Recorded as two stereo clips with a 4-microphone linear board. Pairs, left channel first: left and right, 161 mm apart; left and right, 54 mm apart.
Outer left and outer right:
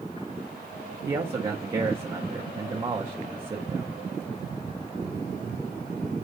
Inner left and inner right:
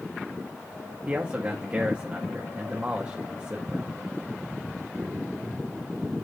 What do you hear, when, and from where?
1.1 s a man speaking: 30° right (ahead or behind), 1.9 m